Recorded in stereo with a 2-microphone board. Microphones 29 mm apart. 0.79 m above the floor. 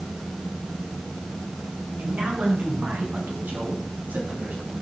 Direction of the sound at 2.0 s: 80° right.